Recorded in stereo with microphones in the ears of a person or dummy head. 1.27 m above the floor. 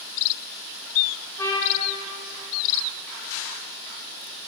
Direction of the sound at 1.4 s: 10° left (ahead or behind).